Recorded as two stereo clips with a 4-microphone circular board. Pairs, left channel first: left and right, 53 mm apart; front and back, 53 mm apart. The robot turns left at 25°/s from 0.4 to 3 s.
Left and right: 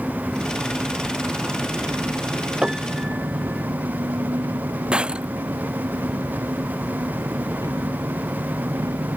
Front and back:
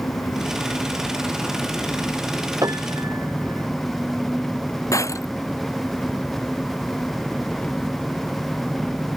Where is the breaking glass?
20° right.